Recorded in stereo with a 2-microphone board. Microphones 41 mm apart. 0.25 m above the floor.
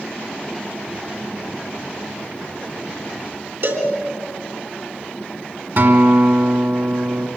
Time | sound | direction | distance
3.6 | a cowbell | 65° right (ahead or behind) | 3.5 m
5.8 | a guitar | 60° right (ahead or behind) | 2.5 m